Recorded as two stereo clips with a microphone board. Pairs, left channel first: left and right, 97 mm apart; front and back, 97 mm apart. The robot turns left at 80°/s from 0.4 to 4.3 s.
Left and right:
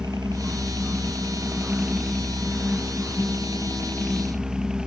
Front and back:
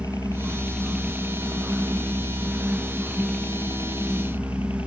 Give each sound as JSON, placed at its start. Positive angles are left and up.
{"t": 0.0, "sound": "a helicopter", "azimuth_deg": -50}